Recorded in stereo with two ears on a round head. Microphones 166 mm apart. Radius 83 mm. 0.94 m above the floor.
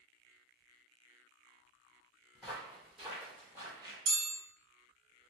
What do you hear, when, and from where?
2.4 s footsteps: 5° left (ahead or behind), 1.6 m; by 4.0 s 25° right (ahead or behind), 1.0 m
4.1 s a chime: 65° right (ahead or behind), 1.5 m